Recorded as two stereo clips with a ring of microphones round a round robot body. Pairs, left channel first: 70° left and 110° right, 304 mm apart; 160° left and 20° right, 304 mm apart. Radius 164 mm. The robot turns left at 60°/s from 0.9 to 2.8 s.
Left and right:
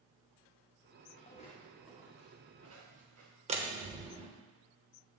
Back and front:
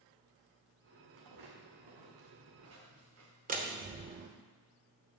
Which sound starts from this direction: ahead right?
A door slam, at 3.5 s.